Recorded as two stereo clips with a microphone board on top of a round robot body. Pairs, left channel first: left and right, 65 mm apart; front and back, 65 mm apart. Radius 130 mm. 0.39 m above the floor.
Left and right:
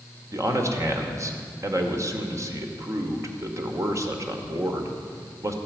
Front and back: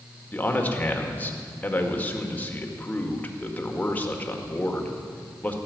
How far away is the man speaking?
About 2.0 m.